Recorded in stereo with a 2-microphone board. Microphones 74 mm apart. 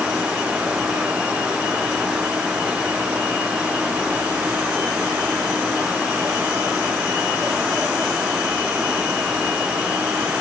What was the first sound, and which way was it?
Only background noise.